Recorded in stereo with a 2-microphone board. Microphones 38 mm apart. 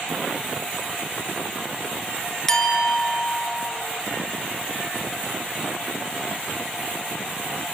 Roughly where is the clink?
Centre.